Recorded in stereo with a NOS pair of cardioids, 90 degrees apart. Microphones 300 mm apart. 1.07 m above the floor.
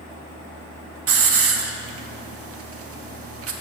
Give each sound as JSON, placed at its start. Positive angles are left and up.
{"t": 1.1, "sound": "a hiss", "azimuth_deg": -50, "distance_m": 1.3}